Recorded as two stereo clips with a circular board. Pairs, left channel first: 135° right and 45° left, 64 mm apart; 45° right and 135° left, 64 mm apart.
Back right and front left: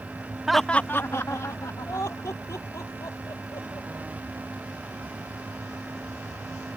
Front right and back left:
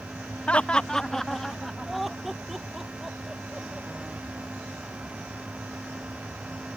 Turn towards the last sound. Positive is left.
turn(degrees=-140)